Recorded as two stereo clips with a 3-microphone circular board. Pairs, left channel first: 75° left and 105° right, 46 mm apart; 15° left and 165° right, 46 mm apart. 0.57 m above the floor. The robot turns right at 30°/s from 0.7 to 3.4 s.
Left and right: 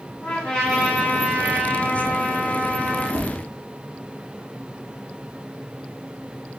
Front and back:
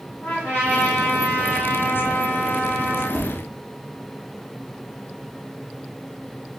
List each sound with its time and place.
0.2 s a trumpet: 20° left, 1.8 m; by 3.0 s 90° left, 1.8 m
3.1 s tapping: 65° right, 0.7 m; by 3.3 s 60° right, 0.7 m